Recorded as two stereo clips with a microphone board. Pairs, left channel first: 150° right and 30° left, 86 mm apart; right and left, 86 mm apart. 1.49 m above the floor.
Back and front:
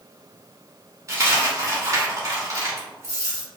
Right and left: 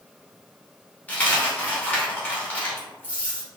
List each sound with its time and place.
1.1 s a dropped coin: 20° right, 2.5 m